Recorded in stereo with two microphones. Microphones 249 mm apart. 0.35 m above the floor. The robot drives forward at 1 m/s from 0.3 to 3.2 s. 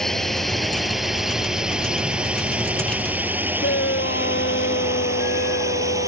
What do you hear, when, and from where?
0.0 s a drone: centre (ahead or behind); by 6.1 s 10° right (ahead or behind)
3.6 s a shout: 50° left (ahead or behind)